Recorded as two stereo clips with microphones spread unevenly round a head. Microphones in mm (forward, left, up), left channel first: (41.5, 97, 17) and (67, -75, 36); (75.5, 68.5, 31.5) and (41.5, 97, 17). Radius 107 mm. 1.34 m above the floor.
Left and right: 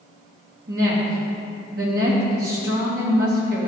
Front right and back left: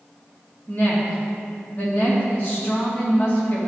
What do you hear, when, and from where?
0.7 s a woman speaking: 130° right, 2 m